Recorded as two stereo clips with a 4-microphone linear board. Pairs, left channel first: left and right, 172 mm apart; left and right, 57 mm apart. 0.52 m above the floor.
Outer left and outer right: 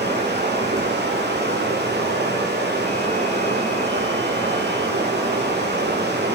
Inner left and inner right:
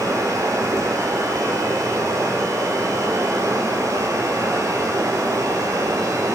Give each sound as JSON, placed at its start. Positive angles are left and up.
{"t": 0.0, "sound": "running water", "side_deg": -85, "distance_m": 3.5}